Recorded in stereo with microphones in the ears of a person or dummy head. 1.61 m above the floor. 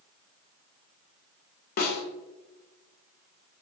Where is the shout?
I don't hear a shout.